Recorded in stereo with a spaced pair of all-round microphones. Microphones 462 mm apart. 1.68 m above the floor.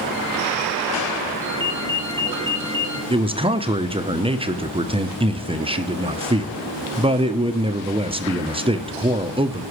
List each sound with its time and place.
1.4 s a ringtone: 70° right (ahead or behind), 4 m
3.1 s a man speaking: 10° right (ahead or behind), 0.7 m